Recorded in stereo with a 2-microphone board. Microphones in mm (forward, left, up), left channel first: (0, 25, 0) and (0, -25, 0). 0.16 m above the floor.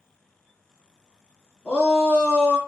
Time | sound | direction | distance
1.6 | a shout | 15° left (ahead or behind) | 1.4 m